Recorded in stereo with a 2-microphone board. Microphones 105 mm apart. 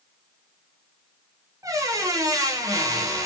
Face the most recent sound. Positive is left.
turn(degrees=-30)  # may be behind; listen again after turning